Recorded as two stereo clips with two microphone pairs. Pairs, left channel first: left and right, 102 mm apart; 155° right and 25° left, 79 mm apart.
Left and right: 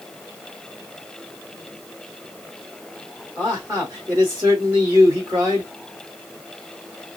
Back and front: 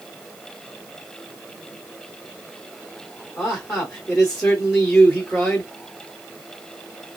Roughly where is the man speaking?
Right.